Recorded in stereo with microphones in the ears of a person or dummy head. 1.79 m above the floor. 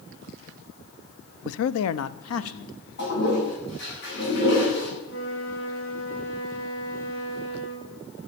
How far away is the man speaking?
About 0.6 m.